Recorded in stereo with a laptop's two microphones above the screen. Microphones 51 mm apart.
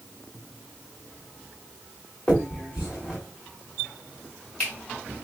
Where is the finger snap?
20° left (ahead or behind), 2.5 m.